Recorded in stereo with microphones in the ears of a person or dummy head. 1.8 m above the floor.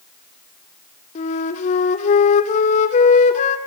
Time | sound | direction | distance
1.1 | a flute | 45° left (ahead or behind) | 2.5 m